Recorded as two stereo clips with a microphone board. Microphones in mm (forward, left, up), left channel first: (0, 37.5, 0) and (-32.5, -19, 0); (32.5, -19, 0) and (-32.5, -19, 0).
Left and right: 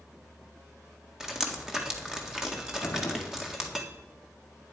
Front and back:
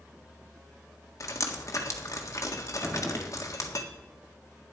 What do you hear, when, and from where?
1.2 s dripping: 40° right, 1.6 m
2.8 s a gunshot: 105° left, 1.9 m